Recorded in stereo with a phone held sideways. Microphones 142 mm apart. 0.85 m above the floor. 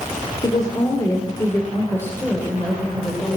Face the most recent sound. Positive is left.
turn(degrees=5)  # may be behind; listen again after turning